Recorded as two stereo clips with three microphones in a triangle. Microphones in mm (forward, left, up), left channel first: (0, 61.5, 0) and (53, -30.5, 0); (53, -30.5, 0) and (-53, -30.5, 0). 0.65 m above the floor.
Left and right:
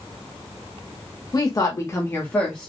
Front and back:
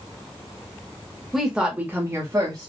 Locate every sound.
1.3 s a woman speaking: 90° left, 1.0 m; by 2.7 s 160° right, 1.0 m